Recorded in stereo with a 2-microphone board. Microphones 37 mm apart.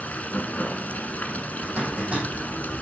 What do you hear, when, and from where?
0.0 s running water: 45° left (ahead or behind), 1.0 m
1.6 s a zipper: 40° right (ahead or behind), 4 m